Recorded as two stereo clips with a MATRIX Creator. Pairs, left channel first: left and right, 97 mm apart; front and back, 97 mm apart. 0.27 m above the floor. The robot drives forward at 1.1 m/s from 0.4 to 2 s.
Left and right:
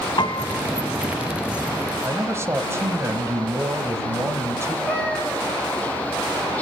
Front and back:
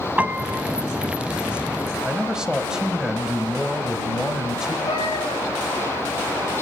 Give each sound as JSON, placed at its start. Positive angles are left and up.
{"t": 0.2, "sound": "a piano", "azimuth_deg": 110, "distance_m": 0.7}
{"t": 2.0, "sound": "a man speaking", "azimuth_deg": -105, "distance_m": 1.0}
{"t": 4.9, "sound": "a cat meowing", "azimuth_deg": 15, "distance_m": 3.0}